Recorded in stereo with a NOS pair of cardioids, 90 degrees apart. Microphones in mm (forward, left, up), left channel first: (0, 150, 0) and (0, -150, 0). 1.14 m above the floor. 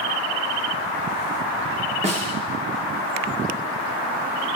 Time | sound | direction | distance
2.0 | a snare drum | 25° right | 1.0 m